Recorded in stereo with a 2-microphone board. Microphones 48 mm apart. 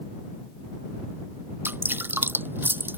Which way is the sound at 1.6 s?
45° right (ahead or behind).